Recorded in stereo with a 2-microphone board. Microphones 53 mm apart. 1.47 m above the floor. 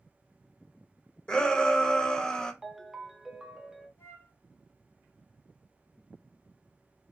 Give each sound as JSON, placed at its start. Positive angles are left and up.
{"t": 1.3, "sound": "a shout", "side_deg": 15, "distance_m": 0.8}
{"t": 2.6, "sound": "a ringtone", "side_deg": -10, "distance_m": 0.6}
{"t": 4.0, "sound": "a flute", "side_deg": 70, "distance_m": 1.8}